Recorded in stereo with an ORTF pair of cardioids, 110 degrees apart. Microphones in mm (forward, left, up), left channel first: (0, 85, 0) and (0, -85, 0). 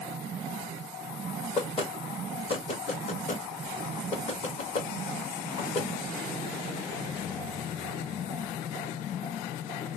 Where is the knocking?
35° left, 1.5 m.